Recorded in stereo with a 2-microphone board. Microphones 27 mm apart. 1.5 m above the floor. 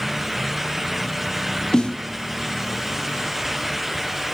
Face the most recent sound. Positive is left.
turn(degrees=35)  # may be behind; listen again after turning